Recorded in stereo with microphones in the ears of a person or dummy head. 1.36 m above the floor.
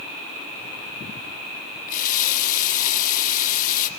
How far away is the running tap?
About 1.5 m.